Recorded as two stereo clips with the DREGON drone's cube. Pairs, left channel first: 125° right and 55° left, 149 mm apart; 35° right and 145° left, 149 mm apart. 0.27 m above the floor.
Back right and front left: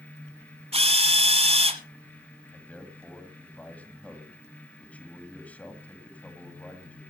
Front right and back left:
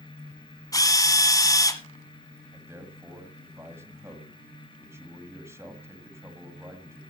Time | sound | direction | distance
0.7 | a drill | 25° left | 1.2 m
2.5 | a man speaking | 175° left | 1.6 m